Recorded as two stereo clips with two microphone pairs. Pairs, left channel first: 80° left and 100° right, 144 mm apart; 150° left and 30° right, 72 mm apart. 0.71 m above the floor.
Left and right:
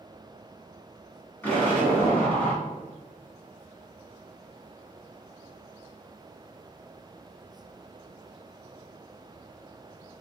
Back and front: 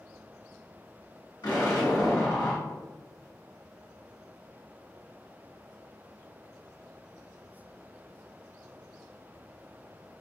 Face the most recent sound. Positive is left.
turn(degrees=160)